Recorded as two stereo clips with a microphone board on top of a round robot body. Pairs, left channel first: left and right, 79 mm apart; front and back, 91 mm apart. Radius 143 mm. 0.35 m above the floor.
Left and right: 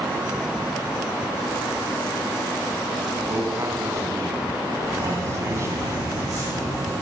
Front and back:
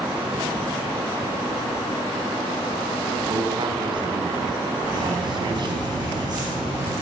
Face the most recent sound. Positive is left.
turn(degrees=-135)